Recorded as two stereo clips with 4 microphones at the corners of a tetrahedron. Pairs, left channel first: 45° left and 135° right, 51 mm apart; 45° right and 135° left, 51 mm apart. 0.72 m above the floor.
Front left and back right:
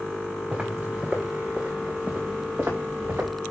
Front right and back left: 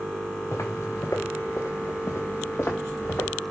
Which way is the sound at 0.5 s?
65° right.